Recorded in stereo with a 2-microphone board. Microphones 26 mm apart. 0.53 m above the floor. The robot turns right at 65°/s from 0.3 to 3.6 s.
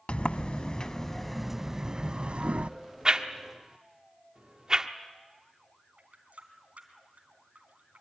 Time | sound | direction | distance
0.1 | a sliding door | 105° left | 0.6 m
3.0 | a whoosh | 35° right (ahead or behind) | 1.0 m
6.0 | a running tap | 70° right (ahead or behind) | 3.5 m